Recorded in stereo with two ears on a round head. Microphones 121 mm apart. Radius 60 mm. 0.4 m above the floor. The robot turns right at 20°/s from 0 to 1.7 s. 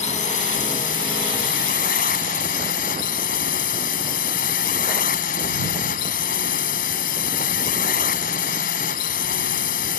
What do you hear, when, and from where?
0.0 s a drone: 60° left; by 10.0 s 95° left